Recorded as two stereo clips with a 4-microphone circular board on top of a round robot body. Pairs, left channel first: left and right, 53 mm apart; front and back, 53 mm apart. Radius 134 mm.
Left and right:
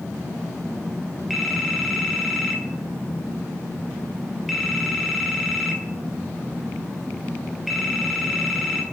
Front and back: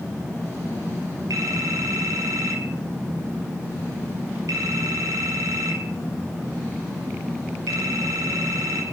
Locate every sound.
1.3 s a phone ringing: straight behind, 4 m